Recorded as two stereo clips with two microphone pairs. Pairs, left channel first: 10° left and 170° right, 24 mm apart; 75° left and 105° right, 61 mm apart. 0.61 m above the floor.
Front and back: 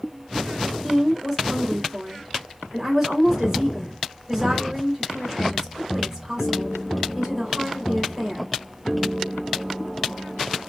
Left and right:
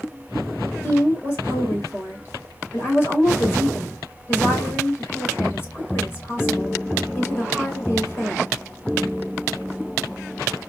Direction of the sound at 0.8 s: 125° left.